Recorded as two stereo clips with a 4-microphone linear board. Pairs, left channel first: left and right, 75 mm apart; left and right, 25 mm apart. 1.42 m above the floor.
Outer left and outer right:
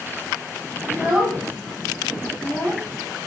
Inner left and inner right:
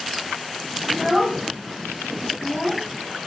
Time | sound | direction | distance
0.9 | a child speaking | 10° right (ahead or behind) | 0.9 m